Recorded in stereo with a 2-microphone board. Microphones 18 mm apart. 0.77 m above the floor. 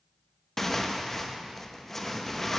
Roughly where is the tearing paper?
Centre.